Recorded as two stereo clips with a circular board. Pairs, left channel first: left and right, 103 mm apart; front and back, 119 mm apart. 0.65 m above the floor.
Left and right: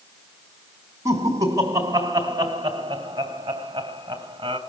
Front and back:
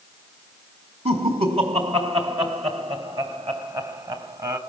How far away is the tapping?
I don't hear tapping.